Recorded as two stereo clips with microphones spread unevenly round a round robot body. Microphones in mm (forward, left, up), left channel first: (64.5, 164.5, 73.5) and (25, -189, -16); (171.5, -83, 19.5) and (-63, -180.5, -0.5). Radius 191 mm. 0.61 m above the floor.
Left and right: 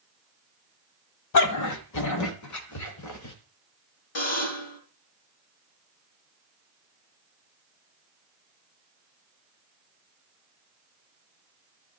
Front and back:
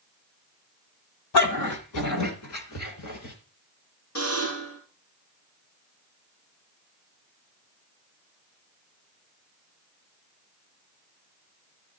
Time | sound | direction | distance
1.3 | a dog barking | 45° left | 1.8 m
4.2 | a buzzer | 80° left | 5 m